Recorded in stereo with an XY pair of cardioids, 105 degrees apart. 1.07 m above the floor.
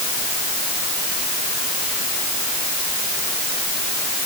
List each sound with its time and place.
Only background noise.